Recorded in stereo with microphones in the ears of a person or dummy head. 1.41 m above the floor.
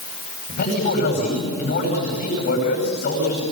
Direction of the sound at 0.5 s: 60° left (ahead or behind).